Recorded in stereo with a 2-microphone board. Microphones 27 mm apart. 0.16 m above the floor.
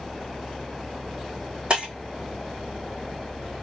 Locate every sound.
1.7 s breaking glass: 40° right (ahead or behind), 1.8 m